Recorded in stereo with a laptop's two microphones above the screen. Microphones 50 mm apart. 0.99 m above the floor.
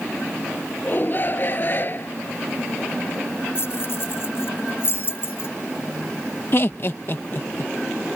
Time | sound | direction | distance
0.8 | a shout | 40° left (ahead or behind) | ?
3.5 | keys jangling | 50° left (ahead or behind) | ?
6.5 | laughter | 45° left (ahead or behind) | ?